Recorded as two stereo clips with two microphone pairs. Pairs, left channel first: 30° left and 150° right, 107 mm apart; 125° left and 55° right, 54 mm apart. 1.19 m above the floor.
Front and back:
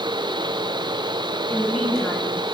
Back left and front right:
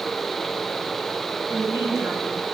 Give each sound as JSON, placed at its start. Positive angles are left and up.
{"t": 1.5, "sound": "a woman speaking", "azimuth_deg": -55, "distance_m": 9.0}